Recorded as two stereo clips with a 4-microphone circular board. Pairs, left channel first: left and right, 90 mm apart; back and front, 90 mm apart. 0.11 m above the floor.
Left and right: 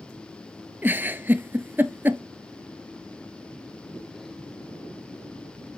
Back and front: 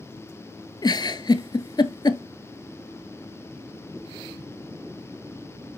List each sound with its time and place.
0.8 s a giggle: 155° right, 0.6 m